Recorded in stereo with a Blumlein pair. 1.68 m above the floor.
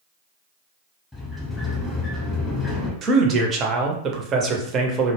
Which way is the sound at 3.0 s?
30° right.